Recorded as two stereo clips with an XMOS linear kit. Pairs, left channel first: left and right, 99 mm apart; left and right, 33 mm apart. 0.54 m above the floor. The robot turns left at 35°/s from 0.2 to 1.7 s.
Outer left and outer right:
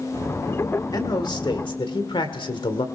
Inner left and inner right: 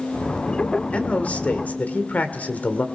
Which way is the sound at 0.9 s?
40° left (ahead or behind).